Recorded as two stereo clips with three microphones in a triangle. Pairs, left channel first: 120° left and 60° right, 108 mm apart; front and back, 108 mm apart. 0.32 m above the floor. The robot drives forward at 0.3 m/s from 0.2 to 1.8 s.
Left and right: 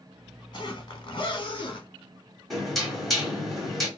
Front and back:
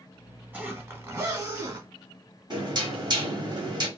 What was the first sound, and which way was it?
A zipper, 120° left.